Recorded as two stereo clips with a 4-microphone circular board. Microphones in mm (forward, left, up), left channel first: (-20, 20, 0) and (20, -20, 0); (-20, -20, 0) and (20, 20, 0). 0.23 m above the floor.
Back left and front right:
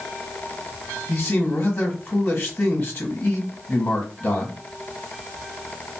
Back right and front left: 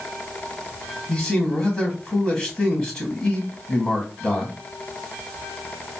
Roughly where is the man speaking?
Behind.